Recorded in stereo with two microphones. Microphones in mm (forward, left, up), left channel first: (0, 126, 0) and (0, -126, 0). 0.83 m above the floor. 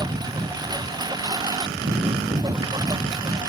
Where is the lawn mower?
15° right (ahead or behind).